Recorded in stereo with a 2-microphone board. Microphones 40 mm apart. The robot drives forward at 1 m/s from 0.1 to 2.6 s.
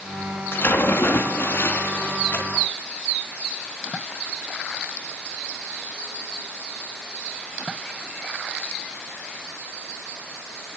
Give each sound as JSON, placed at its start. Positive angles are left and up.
{"t": 0.5, "sound": "a splash", "side_deg": 65, "distance_m": 3.0}